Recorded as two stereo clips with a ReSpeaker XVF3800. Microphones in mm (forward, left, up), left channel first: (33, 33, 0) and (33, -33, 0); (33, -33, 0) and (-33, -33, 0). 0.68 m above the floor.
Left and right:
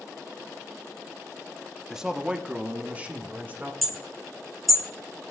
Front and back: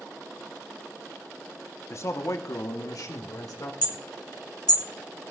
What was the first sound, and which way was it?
A man speaking, 10° right.